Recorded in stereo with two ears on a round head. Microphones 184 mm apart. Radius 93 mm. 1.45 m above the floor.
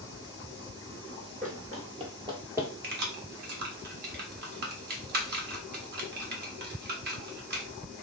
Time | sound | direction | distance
1.4 | running footsteps | 40° right (ahead or behind) | 1.9 m
2.8 | keys jangling | 50° right (ahead or behind) | 1.3 m